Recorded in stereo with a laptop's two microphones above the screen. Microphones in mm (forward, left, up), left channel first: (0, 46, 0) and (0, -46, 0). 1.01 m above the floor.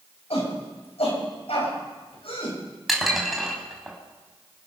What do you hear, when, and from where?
0.3 s a shout: 85° left, 7 m; by 2.6 s 65° left (ahead or behind), 6.5 m
2.9 s dishes clattering: centre (ahead or behind), 4 m